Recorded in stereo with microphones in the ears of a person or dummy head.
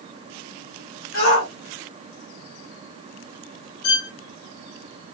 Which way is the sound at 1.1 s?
85° left.